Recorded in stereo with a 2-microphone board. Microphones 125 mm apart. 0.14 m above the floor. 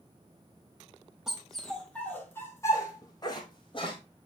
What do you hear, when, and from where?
1.3 s a dog barking: 5° right (ahead or behind), 2 m; by 4.0 s 45° left (ahead or behind), 2.5 m